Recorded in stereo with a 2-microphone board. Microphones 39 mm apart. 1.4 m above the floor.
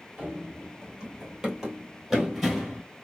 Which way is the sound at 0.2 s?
25° right (ahead or behind).